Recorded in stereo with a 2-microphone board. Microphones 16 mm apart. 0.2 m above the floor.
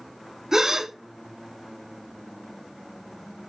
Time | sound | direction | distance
0.5 | a gasp | 25° right (ahead or behind) | 0.6 m